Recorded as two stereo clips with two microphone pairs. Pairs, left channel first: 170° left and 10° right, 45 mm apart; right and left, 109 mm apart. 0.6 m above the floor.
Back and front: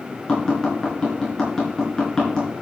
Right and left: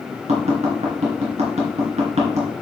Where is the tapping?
95° left, 3.5 m.